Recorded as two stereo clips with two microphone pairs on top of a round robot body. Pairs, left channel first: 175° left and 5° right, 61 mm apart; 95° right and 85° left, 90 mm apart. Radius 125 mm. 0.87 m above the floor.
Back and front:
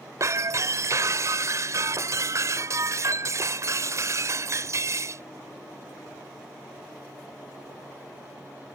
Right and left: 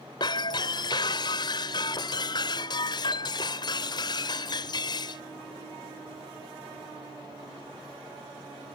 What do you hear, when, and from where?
0.2 s breaking glass: 50° right